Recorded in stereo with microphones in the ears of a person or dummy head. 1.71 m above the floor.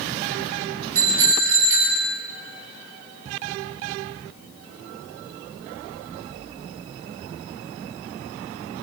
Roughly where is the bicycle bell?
Right.